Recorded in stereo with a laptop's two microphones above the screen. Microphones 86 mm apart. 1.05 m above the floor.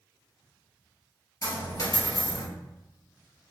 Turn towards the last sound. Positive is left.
turn(degrees=45)  # may be behind; listen again after turning